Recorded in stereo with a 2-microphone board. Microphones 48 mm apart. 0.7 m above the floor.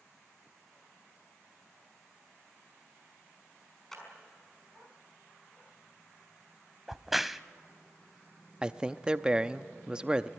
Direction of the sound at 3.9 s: 10° left (ahead or behind).